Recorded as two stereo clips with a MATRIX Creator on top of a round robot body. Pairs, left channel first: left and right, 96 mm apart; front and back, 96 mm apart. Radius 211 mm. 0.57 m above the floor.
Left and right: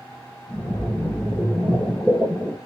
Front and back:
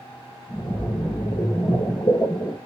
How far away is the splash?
About 3.5 m.